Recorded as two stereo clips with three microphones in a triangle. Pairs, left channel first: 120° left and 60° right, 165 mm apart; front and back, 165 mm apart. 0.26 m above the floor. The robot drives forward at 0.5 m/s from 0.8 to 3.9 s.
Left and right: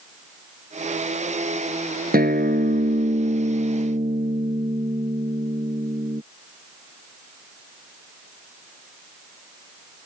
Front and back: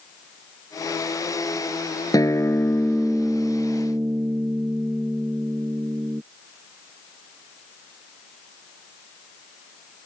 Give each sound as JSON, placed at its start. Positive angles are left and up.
{"t": 2.1, "sound": "a guitar", "azimuth_deg": -65}